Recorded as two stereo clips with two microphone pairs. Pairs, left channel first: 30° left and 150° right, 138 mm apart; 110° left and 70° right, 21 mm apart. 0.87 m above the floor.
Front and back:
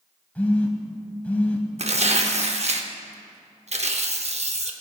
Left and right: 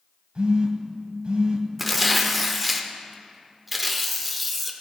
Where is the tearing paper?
155° right, 0.6 m.